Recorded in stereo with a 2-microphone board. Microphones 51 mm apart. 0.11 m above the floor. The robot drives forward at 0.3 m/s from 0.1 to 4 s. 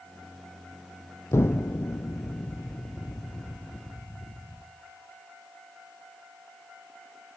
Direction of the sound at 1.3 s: 65° left (ahead or behind).